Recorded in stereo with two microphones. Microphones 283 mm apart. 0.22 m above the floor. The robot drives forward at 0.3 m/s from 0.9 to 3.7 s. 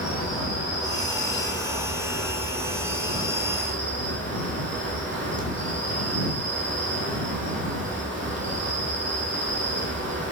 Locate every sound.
0.0 s an insect: 15° right (ahead or behind), 1.2 m; by 10.3 s 40° right (ahead or behind), 0.5 m